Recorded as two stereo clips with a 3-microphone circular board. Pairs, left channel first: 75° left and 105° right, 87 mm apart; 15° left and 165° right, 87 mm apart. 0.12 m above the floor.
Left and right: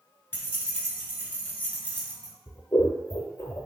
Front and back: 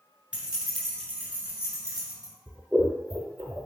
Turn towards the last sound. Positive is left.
turn(degrees=120)